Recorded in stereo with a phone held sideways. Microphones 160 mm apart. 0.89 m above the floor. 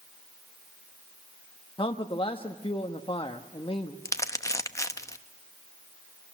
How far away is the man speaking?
About 1.0 m.